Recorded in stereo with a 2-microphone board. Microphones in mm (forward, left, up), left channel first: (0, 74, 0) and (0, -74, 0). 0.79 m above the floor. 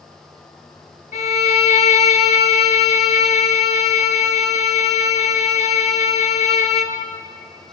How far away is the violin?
About 1.0 m.